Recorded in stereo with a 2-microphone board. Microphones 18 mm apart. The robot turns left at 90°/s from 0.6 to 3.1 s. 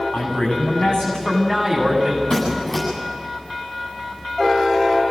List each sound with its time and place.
0.1 s a man speaking: 100° left, 9 m; by 2.2 s 45° right, 9 m
2.3 s a squeak: 50° left, 9.5 m; by 2.8 s straight ahead, 9.5 m